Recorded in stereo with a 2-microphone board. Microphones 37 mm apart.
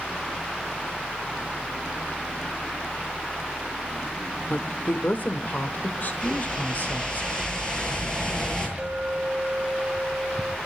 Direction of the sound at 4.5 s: 50° left (ahead or behind).